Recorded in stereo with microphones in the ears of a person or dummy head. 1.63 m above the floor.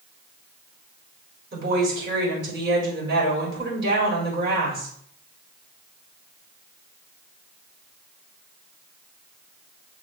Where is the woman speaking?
65° right (ahead or behind), 4.5 m.